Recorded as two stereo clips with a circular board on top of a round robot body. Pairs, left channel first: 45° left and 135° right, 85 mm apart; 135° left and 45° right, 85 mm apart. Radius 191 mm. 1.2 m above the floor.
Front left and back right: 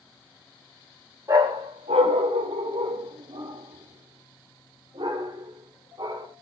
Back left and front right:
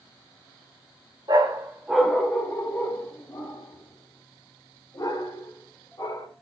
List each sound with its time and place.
1.3 s a dog barking: 85° right, 0.7 m; by 6.3 s 175° right, 3 m